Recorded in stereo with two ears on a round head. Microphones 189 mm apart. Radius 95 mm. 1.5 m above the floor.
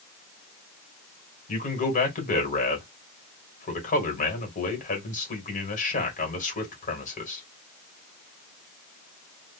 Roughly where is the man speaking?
Left.